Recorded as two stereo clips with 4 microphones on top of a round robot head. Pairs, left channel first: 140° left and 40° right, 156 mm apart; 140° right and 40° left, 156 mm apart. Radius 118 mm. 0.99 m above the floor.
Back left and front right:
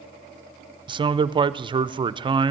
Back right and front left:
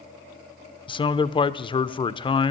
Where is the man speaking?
90° right, 0.5 m.